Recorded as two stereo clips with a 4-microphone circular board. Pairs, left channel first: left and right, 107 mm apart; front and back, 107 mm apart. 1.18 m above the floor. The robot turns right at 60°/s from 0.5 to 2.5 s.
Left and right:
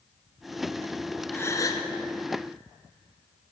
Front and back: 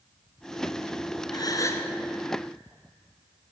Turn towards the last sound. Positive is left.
turn(degrees=100)